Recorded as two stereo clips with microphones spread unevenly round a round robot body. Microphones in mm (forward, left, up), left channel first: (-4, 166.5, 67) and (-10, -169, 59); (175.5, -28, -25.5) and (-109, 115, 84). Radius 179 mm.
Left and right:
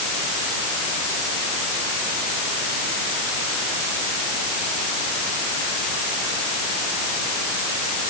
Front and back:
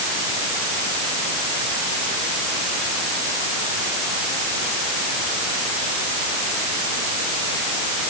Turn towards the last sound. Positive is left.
No sound to turn to.